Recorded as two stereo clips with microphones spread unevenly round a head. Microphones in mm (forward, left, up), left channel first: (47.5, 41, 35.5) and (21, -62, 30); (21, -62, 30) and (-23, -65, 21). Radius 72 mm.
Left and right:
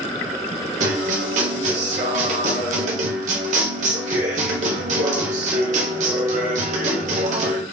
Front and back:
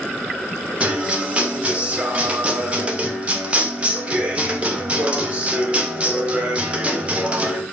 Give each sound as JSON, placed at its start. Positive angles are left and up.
{"t": 0.8, "sound": "a guitar", "azimuth_deg": -115, "distance_m": 1.1}